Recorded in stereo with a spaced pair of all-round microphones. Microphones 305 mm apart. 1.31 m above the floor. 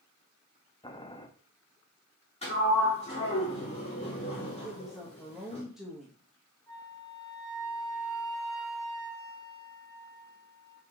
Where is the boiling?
15° left (ahead or behind), 0.9 m.